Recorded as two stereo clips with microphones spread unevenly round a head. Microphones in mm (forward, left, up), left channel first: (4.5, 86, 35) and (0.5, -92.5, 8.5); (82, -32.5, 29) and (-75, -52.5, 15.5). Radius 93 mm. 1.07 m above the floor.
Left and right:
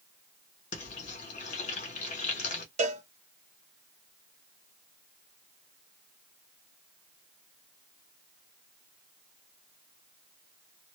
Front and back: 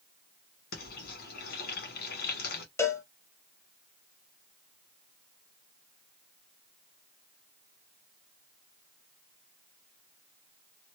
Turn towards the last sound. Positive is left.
turn(degrees=-65)